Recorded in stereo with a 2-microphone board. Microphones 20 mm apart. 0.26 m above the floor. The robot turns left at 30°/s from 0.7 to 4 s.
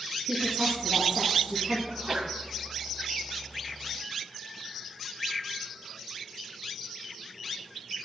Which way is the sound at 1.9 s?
40° right (ahead or behind).